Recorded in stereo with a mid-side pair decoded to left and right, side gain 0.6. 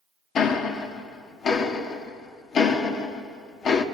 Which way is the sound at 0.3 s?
50° left.